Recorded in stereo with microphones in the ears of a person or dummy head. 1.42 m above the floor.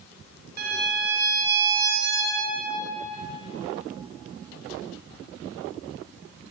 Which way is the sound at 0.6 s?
60° right (ahead or behind).